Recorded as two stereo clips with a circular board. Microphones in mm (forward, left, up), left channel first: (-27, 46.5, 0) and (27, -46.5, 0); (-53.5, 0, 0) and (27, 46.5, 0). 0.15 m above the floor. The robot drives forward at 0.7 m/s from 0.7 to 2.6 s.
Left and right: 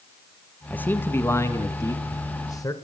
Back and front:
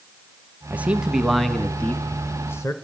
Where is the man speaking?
70° left, 1.3 m; by 2.7 s 160° left, 1.7 m.